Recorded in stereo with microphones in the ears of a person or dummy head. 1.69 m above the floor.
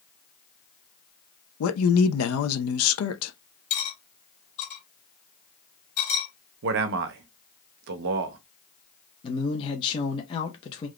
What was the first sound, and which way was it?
A man speaking, 85° left.